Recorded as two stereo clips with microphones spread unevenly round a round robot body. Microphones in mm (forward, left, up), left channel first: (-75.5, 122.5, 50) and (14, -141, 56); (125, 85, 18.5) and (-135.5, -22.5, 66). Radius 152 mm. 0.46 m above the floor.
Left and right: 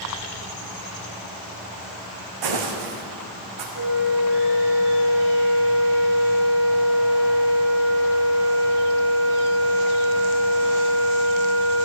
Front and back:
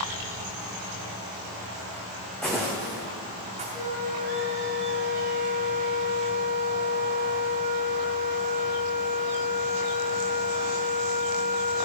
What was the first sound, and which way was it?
Footsteps, 70° right.